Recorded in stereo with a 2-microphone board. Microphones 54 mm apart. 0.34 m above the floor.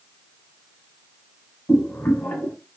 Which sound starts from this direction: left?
Boiling, at 1.7 s.